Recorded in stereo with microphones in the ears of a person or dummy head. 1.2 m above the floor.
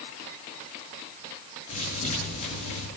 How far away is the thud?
About 8.5 m.